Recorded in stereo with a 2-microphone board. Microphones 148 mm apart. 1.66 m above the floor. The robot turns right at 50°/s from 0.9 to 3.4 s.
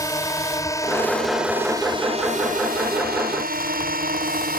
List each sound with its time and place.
0.0 s a drone: 20° left (ahead or behind); by 4.6 s 70° right (ahead or behind)